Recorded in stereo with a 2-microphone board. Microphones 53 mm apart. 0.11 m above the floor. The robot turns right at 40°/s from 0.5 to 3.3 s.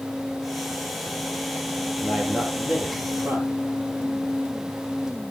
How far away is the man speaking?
About 3 m.